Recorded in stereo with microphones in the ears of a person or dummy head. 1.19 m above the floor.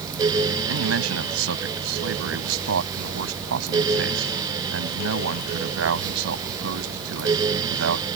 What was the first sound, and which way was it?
A man speaking, 90° right.